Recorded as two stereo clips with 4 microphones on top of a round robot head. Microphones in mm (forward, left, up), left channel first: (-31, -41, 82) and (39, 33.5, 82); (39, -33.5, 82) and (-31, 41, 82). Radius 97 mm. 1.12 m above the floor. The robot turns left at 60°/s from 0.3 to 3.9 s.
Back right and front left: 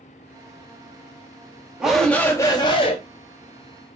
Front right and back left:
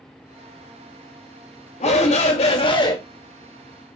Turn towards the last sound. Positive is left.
turn(degrees=-160)